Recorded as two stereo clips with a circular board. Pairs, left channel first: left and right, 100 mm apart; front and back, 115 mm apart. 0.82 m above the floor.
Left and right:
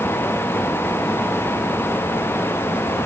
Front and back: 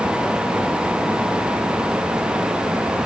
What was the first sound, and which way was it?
Only background noise.